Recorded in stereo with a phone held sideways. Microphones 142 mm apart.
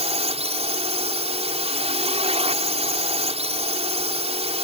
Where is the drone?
45° right (ahead or behind).